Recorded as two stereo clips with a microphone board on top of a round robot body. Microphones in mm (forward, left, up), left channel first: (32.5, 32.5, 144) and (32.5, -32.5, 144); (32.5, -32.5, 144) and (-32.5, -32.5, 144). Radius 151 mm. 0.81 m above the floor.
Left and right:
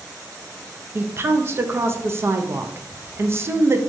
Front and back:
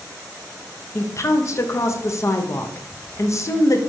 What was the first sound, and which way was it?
A woman speaking, 40° right.